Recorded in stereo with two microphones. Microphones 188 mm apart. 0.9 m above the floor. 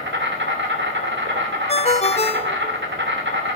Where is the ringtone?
35° left (ahead or behind), 0.6 m.